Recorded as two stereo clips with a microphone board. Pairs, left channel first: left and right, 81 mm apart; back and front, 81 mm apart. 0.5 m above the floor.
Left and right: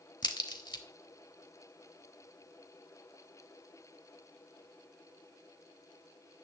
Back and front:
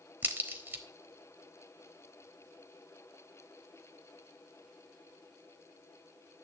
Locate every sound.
0.2 s a crack: 65° left, 1.0 m